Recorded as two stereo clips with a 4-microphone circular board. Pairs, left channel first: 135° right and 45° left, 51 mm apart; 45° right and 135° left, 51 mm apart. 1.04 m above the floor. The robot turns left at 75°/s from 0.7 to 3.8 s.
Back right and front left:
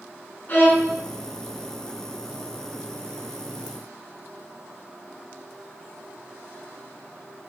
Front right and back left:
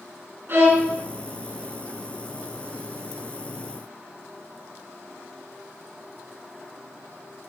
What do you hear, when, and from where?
0.5 s a violin: 175° left, 5 m; by 0.9 s 155° left, 5 m